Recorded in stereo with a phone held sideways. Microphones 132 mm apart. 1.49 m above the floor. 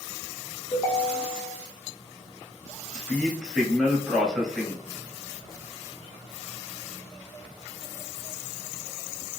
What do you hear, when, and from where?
0.7 s a ringtone: 25° left (ahead or behind), 0.7 m
2.9 s a man speaking: 5° left (ahead or behind), 0.7 m